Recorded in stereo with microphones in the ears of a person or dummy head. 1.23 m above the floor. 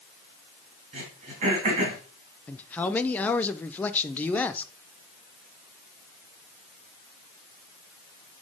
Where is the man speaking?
10° left (ahead or behind), 0.5 m.